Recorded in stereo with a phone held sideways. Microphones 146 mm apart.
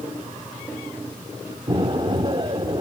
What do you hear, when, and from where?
1.7 s an explosion: 30° right (ahead or behind), 1.1 m